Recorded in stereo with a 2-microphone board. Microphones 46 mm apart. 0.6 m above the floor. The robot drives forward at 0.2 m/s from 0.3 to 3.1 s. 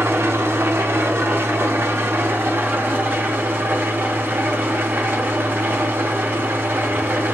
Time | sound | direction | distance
0.0 | an engine running | 65° right (ahead or behind) | 0.7 m